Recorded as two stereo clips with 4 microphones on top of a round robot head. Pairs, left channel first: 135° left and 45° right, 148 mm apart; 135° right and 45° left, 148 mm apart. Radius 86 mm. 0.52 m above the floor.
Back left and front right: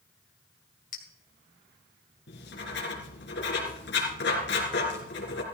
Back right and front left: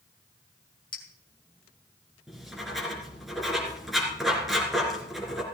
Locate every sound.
0.9 s a clink: 165° left, 2 m
2.3 s writing: 135° left, 3.5 m